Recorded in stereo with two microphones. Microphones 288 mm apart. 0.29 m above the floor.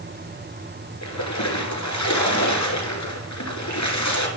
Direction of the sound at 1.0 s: 75° left (ahead or behind).